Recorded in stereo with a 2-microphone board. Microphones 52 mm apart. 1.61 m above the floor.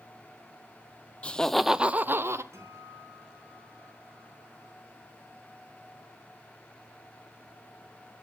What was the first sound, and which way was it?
Laughter, 20° left (ahead or behind).